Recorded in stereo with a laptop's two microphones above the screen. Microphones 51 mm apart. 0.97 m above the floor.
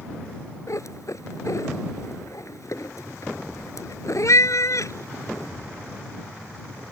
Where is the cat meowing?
70° left (ahead or behind).